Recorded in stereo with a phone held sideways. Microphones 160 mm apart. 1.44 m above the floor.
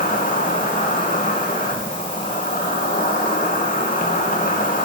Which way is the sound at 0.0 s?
60° left (ahead or behind).